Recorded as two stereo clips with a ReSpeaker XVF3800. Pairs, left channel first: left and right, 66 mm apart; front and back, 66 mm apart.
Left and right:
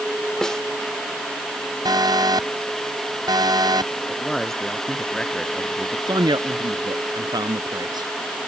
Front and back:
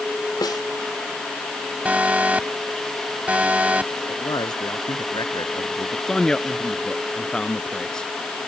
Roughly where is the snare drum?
Ahead.